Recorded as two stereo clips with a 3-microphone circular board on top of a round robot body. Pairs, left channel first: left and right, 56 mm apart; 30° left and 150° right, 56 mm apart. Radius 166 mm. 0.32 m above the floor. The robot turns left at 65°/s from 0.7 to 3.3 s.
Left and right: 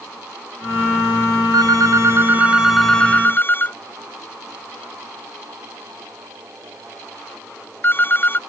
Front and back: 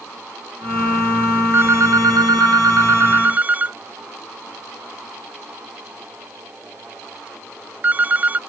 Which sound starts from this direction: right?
A phone ringing, at 1.5 s.